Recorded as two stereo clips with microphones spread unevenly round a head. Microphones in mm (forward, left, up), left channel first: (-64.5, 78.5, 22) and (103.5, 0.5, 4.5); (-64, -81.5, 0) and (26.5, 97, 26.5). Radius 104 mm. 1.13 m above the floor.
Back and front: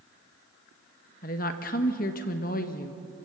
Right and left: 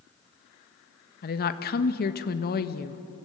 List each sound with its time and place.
1.2 s a woman speaking: 155° right, 1.4 m